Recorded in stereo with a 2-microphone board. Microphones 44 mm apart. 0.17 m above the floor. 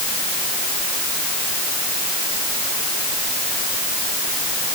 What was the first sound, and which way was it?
Only background noise.